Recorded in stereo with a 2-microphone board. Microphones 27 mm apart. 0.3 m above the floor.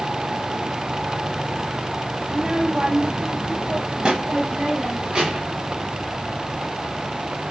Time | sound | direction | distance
2.3 | a child speaking | 20° right (ahead or behind) | 0.9 m